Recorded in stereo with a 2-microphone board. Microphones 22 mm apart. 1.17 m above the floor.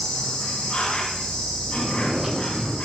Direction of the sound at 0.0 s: 45° left (ahead or behind).